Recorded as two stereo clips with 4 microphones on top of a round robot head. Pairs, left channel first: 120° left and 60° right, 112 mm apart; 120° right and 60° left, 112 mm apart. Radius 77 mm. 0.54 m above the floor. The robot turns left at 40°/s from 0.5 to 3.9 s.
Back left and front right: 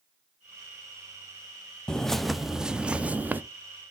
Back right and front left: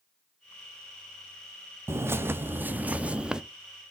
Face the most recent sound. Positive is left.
turn(degrees=-30)